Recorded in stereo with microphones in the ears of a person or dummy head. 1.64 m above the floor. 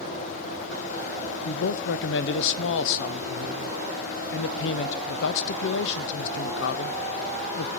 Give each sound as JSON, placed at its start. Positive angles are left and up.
{"t": 1.4, "sound": "a man speaking", "side_deg": 65, "distance_m": 0.8}